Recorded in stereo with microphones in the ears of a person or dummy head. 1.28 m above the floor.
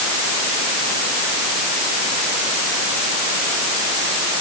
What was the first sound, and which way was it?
Only background noise.